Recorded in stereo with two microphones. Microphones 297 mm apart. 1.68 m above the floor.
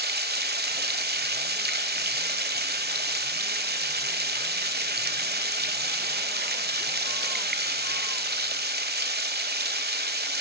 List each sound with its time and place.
0.0 s running water: 30° right (ahead or behind), 1.8 m